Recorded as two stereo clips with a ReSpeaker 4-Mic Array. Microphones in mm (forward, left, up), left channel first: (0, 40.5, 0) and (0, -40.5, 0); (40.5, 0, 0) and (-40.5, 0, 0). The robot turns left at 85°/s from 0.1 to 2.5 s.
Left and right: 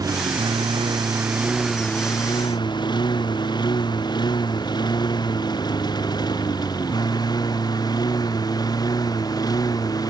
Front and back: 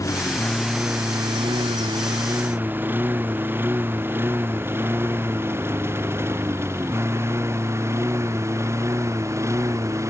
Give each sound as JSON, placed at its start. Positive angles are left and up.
{"t": 0.0, "sound": "a lawn mower", "azimuth_deg": -50}